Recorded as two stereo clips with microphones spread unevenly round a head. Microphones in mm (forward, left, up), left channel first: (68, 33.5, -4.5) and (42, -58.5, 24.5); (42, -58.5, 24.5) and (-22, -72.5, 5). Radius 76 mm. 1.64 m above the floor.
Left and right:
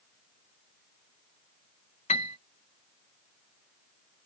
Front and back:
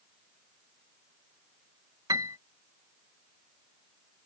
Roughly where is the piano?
Behind left.